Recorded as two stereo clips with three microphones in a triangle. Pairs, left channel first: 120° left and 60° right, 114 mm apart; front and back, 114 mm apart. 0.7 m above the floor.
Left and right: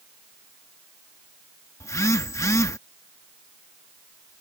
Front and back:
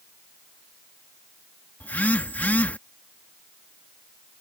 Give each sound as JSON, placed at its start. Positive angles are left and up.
{"t": 1.8, "sound": "a phone buzzing", "azimuth_deg": 70}